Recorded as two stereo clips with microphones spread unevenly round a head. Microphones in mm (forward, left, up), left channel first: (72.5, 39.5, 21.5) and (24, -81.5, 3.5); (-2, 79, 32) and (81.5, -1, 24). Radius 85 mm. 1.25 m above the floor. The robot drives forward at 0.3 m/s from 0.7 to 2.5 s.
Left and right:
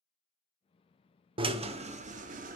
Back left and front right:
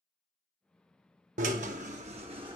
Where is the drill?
60° right, 0.5 m; by 2.6 s 105° right, 0.5 m.